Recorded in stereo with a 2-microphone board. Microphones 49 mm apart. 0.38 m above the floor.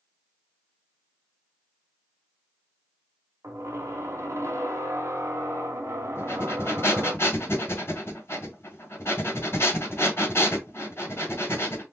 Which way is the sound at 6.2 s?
60° left (ahead or behind).